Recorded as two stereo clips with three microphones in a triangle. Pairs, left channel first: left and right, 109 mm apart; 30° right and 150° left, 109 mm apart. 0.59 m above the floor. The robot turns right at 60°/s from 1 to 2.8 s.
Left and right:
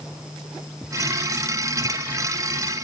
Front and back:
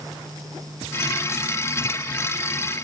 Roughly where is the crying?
No crying in this recording.